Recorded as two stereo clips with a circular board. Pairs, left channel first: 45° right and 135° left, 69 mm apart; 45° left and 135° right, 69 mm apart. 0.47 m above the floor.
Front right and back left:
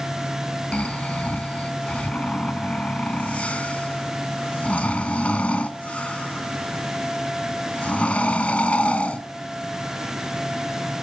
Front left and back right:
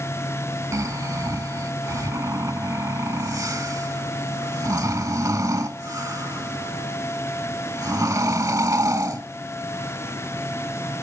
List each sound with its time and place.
0.7 s snoring: 115° right, 0.6 m